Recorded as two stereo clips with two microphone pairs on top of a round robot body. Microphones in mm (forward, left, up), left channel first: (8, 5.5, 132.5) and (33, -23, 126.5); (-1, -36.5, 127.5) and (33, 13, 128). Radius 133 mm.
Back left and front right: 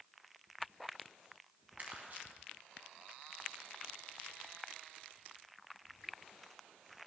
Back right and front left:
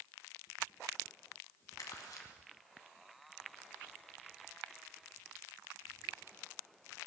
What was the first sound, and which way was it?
Crumpling, 100° right.